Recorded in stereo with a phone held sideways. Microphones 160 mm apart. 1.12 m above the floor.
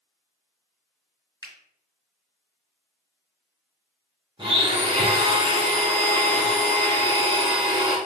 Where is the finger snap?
25° left (ahead or behind), 1.4 m.